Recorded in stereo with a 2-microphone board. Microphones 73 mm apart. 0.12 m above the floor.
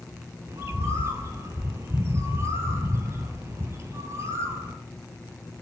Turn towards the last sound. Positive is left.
turn(degrees=-45)  # may be behind; listen again after turning